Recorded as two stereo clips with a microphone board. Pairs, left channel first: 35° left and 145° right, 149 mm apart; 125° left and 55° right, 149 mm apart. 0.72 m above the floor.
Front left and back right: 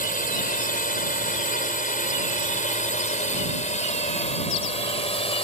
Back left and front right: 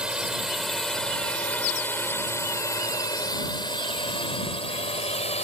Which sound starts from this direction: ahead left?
A drone, at 0.0 s.